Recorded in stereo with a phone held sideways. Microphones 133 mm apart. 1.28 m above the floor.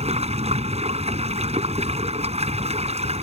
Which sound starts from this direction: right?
Running water, at 0.0 s.